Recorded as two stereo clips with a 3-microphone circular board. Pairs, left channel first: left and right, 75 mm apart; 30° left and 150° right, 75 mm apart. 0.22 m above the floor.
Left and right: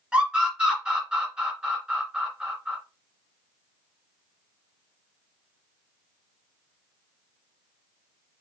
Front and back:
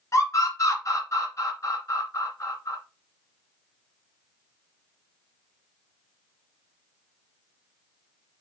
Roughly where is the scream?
Ahead.